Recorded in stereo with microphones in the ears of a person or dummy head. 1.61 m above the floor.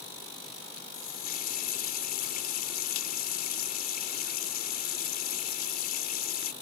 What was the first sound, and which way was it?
A running tap, 50° left (ahead or behind).